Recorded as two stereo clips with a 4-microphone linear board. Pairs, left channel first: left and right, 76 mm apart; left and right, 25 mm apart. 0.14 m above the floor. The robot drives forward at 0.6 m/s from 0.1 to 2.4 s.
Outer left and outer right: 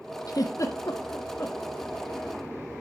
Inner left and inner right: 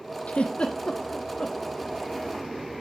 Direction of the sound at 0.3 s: 55° left (ahead or behind).